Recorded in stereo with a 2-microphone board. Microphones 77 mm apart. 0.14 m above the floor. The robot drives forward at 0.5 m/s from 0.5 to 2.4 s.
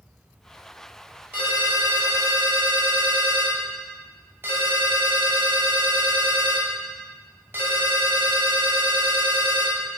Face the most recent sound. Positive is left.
turn(degrees=-30)  # may be behind; listen again after turning